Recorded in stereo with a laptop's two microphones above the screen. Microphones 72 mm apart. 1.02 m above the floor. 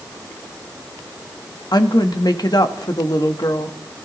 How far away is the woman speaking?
About 1.2 m.